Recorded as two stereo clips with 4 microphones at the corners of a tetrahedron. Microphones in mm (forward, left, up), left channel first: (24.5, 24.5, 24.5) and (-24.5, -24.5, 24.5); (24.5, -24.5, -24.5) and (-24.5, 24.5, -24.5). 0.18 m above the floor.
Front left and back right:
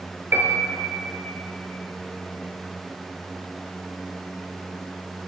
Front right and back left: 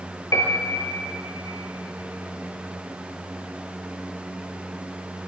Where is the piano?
80° right, 0.5 m.